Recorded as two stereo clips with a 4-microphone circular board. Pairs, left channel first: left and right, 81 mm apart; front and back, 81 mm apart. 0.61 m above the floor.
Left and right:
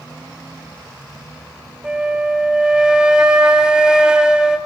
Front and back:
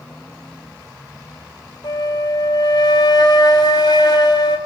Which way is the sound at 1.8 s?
10° right.